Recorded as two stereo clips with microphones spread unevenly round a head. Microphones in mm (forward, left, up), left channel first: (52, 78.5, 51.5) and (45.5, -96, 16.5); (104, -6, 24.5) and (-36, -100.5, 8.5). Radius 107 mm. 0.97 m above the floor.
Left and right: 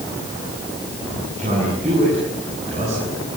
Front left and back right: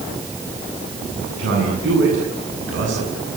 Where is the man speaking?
150° right, 8.5 m.